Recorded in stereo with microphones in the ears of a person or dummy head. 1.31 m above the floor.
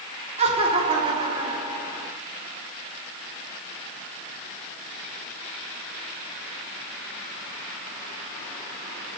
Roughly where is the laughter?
Right.